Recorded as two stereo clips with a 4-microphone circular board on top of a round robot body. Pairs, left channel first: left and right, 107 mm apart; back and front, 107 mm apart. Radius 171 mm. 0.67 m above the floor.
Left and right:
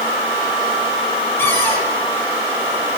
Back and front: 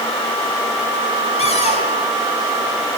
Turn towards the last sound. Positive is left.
turn(degrees=160)